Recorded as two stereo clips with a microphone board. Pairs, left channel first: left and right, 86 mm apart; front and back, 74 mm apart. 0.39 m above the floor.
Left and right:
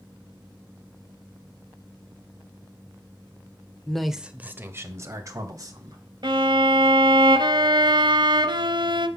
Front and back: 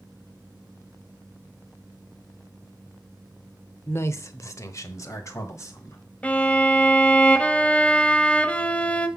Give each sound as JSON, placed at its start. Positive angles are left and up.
{"t": 3.9, "sound": "a man speaking", "azimuth_deg": 15, "distance_m": 0.9}
{"t": 6.2, "sound": "a violin", "azimuth_deg": -70, "distance_m": 0.8}